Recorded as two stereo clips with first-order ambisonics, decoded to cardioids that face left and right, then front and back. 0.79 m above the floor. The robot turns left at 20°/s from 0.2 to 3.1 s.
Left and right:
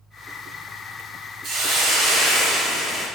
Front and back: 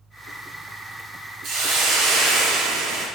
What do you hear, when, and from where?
1.4 s a hiss: 135° right, 0.5 m; by 3.1 s 170° right, 0.5 m